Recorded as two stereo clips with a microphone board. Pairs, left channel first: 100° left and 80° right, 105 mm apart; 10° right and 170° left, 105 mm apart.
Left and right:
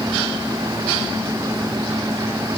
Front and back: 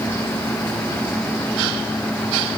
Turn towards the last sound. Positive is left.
No sound to turn to.